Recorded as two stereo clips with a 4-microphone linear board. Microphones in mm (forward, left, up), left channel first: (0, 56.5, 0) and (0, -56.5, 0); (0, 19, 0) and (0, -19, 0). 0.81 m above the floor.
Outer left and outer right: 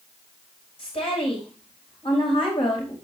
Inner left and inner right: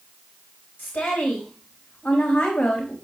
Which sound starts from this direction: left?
A woman speaking, at 0.8 s.